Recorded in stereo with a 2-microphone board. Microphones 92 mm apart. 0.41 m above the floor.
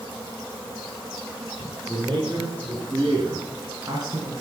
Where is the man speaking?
50° right (ahead or behind), 6 m; by 4.3 s 45° right (ahead or behind), 3 m.